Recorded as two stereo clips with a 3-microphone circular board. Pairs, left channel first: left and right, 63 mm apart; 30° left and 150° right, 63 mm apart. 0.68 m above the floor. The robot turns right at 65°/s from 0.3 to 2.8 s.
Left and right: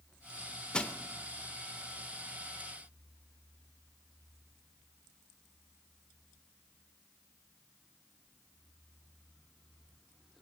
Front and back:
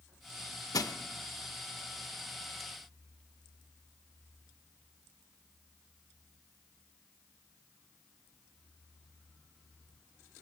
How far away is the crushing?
About 0.6 m.